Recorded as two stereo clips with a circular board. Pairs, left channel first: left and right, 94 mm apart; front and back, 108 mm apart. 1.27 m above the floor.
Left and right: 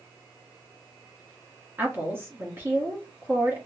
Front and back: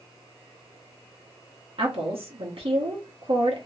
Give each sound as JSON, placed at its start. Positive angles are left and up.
{"t": 1.8, "sound": "a woman speaking", "azimuth_deg": -155, "distance_m": 1.1}